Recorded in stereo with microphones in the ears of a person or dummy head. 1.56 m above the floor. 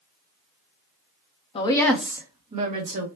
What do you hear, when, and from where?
1.6 s a woman speaking: 30° left (ahead or behind), 0.8 m; by 3.1 s 50° right (ahead or behind), 1.5 m